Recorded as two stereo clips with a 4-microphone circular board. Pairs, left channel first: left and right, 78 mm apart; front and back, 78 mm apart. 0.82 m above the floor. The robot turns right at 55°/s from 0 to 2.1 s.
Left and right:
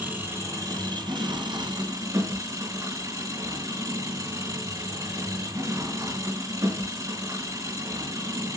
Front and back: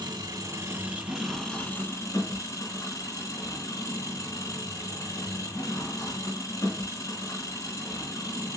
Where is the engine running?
160° right, 4 m; by 8.6 s 45° right, 4 m.